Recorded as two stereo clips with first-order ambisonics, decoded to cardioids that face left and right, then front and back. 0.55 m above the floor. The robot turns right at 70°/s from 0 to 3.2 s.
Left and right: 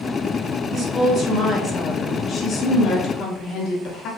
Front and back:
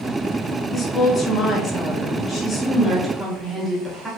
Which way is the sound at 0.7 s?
75° right.